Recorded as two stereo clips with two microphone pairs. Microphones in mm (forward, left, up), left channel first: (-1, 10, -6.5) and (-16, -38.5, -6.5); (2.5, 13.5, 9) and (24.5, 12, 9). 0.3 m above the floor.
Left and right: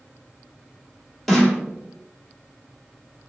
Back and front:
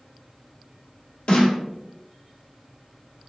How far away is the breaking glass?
I don't hear breaking glass.